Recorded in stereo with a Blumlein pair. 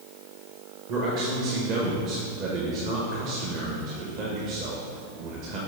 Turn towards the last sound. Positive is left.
turn(degrees=-40)